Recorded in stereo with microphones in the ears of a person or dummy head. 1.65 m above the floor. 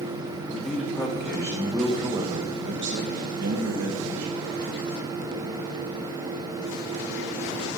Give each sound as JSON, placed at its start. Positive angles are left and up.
{"t": 0.5, "sound": "a man speaking", "side_deg": 25, "distance_m": 2.0}